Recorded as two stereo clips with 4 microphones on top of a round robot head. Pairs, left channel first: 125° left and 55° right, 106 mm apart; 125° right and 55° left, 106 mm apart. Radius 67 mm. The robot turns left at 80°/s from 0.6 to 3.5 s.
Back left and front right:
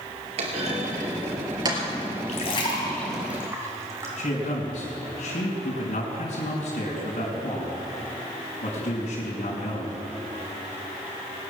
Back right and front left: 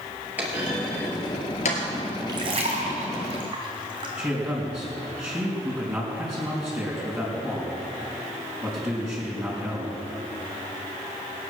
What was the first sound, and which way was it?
A clunk, 20° right.